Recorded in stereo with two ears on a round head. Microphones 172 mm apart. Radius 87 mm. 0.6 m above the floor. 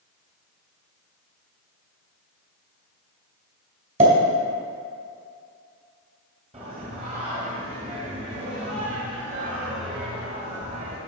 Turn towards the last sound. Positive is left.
turn(degrees=-30)  # may be behind; listen again after turning